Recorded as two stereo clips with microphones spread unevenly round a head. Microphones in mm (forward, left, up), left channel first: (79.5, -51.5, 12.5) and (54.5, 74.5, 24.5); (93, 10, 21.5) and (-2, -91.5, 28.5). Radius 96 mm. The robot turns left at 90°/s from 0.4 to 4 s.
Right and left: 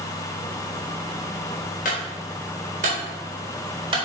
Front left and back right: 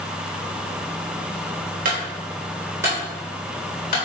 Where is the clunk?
120° right, 4 m; by 4.0 s 45° left, 4 m.